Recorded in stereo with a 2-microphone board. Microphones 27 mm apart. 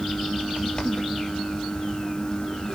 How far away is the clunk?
I don't hear a clunk.